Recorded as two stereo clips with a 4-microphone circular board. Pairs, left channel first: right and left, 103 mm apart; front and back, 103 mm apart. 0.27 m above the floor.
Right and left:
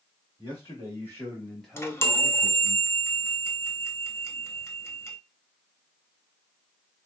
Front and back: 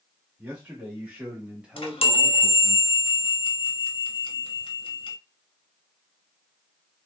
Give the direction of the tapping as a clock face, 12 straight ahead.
I don't hear tapping.